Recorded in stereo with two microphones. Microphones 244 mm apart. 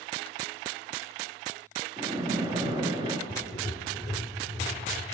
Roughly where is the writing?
Centre.